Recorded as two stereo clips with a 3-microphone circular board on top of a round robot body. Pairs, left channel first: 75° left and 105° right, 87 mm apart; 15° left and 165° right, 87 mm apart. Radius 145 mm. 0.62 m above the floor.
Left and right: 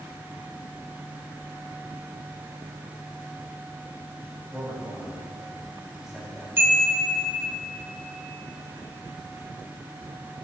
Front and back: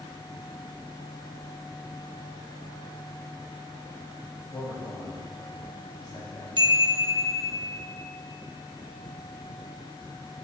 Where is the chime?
165° right, 1.9 m.